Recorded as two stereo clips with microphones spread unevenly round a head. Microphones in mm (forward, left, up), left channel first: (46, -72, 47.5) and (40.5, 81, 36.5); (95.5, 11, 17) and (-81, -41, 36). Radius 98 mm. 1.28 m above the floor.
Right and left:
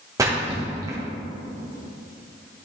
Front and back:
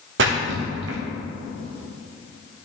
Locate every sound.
0.2 s a splash: 165° left, 1.2 m